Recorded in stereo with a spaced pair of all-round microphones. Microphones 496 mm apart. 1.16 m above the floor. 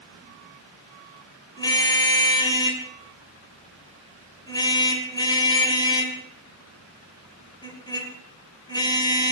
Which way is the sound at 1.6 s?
10° left (ahead or behind).